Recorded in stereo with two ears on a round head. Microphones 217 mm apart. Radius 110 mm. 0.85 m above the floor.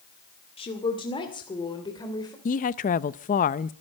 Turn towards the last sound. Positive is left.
turn(degrees=35)  # may be behind; listen again after turning